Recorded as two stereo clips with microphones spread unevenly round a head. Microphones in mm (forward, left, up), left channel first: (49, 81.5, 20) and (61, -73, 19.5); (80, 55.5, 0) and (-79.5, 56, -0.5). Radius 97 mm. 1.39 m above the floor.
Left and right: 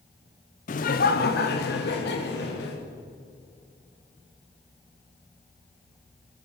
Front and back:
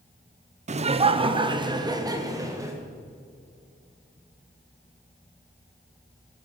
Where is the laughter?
140° left, 0.7 m; by 2.8 s 110° left, 1.7 m.